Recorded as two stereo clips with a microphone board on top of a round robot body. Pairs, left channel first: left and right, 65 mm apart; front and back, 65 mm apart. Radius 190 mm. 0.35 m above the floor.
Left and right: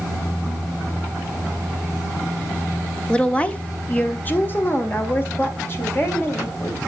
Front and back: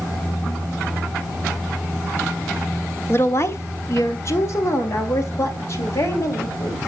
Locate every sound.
3.1 s a woman speaking: 20° left, 1.2 m; by 6.8 s 45° left, 3 m